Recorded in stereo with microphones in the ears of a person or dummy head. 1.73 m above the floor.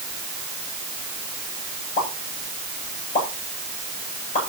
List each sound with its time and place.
2.0 s a pop: 50° left (ahead or behind), 8 m